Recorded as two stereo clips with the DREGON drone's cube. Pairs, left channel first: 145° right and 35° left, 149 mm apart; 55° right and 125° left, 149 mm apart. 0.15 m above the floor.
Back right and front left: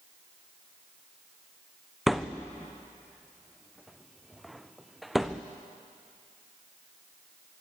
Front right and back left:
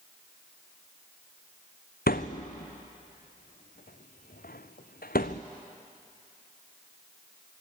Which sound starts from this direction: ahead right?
A thud, at 2.1 s.